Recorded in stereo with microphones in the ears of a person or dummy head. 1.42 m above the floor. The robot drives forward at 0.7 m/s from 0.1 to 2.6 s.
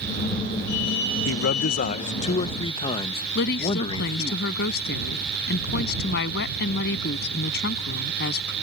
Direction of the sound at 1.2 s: 70° left (ahead or behind).